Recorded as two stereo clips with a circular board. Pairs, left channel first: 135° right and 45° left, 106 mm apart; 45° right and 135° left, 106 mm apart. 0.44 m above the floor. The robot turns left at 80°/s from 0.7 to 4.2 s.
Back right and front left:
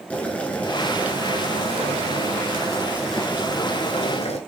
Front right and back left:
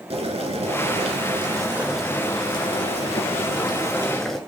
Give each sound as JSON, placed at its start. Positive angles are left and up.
{"t": 0.1, "sound": "boiling", "azimuth_deg": 150, "distance_m": 1.1}